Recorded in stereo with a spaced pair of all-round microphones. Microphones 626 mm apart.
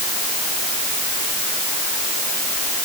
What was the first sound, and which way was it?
Only background noise.